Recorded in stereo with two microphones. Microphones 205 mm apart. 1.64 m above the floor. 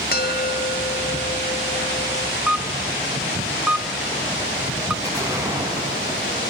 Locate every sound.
0.1 s a bell: 50° left (ahead or behind), 1.0 m
2.5 s a camera shutter: 5° right (ahead or behind), 0.7 m
5.0 s an explosion: 15° right (ahead or behind), 4.5 m